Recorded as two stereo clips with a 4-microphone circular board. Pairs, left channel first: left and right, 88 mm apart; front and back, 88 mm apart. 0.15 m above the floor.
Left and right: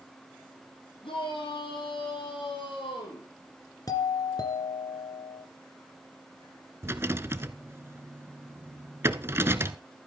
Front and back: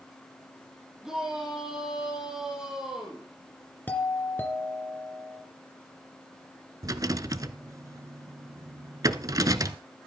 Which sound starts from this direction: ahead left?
A doorbell, at 3.9 s.